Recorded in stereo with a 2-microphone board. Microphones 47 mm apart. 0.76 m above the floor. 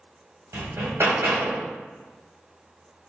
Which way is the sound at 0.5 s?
80° right.